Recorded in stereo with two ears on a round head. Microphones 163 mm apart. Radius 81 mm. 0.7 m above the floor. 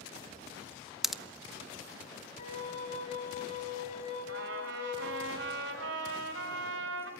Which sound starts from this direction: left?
A flute, at 2.4 s.